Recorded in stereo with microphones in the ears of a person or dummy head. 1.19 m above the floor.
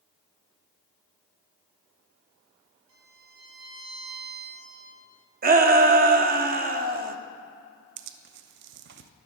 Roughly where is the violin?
Right.